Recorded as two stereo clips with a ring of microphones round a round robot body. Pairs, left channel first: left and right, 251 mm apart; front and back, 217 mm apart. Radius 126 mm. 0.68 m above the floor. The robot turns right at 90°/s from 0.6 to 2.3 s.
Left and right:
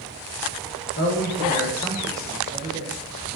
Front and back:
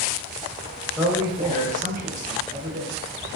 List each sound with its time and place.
1.0 s a man speaking: 90° left, 0.5 m; by 2.9 s 145° right, 0.5 m